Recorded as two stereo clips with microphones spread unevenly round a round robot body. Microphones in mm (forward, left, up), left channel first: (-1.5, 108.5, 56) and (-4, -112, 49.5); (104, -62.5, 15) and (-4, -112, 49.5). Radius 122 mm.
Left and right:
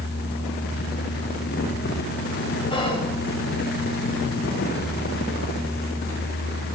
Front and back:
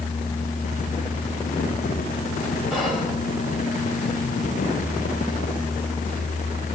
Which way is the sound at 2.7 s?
65° left.